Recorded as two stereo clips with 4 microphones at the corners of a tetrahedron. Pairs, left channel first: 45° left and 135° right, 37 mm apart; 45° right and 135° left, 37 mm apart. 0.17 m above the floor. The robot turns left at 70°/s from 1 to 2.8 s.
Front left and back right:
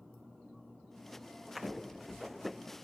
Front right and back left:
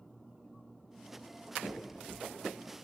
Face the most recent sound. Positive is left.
turn(degrees=50)